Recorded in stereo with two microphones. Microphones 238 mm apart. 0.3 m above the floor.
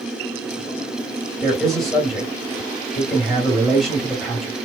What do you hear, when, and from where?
1.4 s a man speaking: centre (ahead or behind), 1.7 m